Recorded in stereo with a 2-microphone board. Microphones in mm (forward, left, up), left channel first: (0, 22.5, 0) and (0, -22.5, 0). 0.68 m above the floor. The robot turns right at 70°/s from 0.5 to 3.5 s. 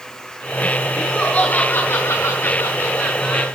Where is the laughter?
Straight ahead, 6.5 m; by 3.5 s 175° left, 6.5 m.